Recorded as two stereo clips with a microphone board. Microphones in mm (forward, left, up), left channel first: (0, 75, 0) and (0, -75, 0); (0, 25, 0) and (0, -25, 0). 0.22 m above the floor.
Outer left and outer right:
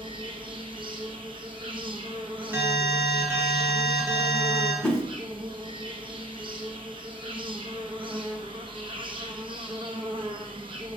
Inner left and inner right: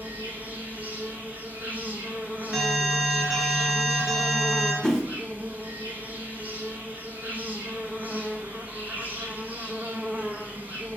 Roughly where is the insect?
Right.